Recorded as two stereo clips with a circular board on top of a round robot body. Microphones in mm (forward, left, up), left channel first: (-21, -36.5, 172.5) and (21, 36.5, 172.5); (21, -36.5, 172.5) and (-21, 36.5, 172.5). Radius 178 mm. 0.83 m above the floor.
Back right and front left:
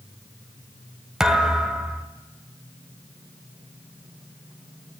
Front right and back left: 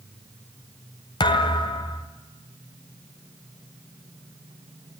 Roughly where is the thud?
Ahead right.